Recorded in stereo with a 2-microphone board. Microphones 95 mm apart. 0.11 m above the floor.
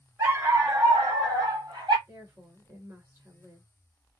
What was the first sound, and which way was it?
A dog barking, 30° right (ahead or behind).